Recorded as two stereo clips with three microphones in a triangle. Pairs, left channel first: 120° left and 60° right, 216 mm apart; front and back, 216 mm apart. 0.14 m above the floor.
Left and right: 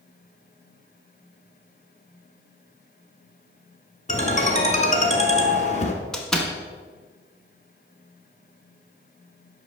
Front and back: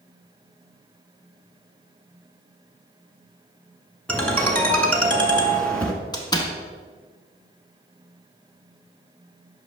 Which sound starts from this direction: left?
A ringtone, at 4.1 s.